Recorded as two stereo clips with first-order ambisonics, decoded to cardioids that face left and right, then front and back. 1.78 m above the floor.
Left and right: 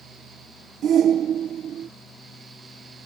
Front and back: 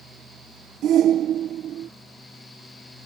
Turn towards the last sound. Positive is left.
turn(degrees=-135)